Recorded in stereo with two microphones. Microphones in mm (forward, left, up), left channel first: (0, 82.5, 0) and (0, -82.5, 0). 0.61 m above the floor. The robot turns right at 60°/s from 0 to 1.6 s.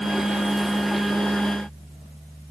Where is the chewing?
I don't hear chewing.